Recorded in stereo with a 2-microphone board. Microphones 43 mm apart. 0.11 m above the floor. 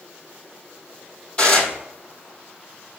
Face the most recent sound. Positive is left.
turn(degrees=25)  # may be behind; listen again after turning